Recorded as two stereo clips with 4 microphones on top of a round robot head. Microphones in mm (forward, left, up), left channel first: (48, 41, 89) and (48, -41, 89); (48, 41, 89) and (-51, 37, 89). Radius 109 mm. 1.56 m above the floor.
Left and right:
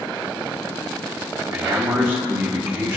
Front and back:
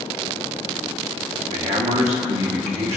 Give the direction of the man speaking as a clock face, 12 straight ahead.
5 o'clock.